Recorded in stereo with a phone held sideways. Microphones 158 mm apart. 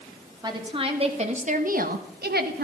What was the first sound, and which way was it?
A woman speaking, 25° right (ahead or behind).